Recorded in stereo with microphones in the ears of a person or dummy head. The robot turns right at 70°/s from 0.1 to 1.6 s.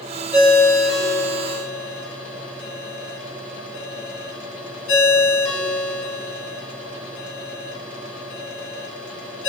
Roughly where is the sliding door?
No sliding door in this recording.